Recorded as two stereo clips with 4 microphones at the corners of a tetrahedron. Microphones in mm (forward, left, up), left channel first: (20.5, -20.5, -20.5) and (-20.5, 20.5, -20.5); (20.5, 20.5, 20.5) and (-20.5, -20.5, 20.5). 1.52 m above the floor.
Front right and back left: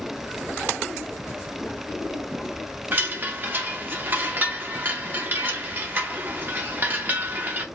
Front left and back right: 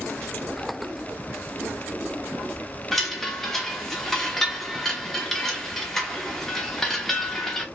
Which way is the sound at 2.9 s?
125° left.